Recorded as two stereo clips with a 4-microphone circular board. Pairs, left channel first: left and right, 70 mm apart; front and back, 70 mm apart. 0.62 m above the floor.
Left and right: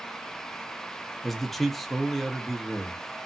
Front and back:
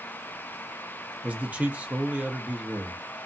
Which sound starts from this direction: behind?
A man speaking, at 1.2 s.